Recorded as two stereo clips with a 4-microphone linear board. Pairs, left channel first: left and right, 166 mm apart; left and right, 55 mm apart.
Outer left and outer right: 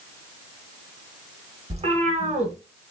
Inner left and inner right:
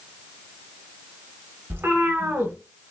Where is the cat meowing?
40° right (ahead or behind), 0.7 m.